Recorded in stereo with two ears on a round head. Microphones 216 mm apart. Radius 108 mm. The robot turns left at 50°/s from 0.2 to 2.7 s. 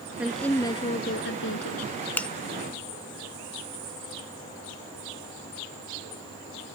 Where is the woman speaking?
175° right; by 1.9 s 100° left.